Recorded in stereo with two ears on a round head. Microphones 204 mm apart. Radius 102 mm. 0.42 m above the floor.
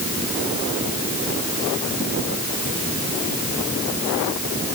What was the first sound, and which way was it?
Only background noise.